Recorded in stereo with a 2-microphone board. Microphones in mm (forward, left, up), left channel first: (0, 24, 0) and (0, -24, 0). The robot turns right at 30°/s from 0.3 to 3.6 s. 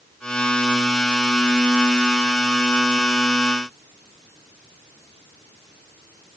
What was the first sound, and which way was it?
Only background noise.